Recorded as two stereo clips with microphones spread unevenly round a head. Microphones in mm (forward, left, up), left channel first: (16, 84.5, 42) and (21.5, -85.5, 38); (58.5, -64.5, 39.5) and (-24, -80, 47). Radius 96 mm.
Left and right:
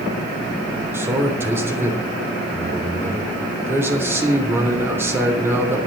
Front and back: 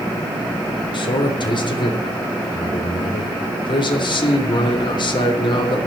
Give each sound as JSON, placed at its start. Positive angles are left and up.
{"t": 0.9, "sound": "a man speaking", "azimuth_deg": -10, "distance_m": 3.0}